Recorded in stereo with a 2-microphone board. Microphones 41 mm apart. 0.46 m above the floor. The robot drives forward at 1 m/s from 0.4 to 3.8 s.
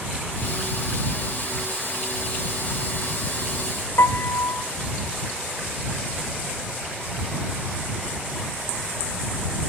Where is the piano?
75° left (ahead or behind), 0.5 m.